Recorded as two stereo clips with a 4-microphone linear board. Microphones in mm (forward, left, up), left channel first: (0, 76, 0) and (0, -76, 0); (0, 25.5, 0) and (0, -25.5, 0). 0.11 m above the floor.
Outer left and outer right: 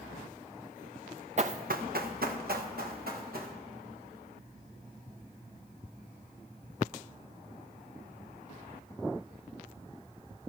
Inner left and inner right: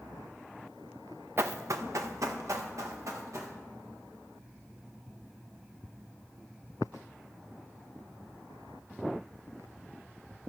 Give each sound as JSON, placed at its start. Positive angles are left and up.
{"t": 1.4, "sound": "running footsteps", "side_deg": -50, "distance_m": 0.7}